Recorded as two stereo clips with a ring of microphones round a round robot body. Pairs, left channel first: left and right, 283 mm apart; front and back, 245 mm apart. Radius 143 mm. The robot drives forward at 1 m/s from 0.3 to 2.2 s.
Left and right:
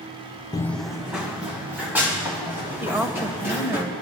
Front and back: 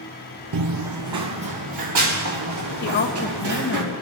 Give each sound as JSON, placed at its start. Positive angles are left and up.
{"t": 0.5, "sound": "running footsteps", "azimuth_deg": 165, "distance_m": 0.5}
{"t": 2.8, "sound": "a woman speaking", "azimuth_deg": -10, "distance_m": 1.2}